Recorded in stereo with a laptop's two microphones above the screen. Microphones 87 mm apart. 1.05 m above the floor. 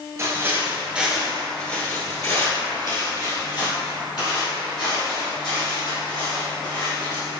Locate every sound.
0.2 s footsteps: 35° right (ahead or behind), 1.1 m; by 7.3 s 75° left (ahead or behind), 4 m